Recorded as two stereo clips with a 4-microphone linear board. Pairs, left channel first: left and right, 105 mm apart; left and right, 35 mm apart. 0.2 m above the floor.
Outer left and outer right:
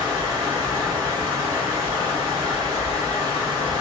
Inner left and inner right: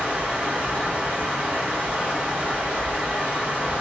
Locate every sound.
0.0 s running water: 35° right (ahead or behind), 1.8 m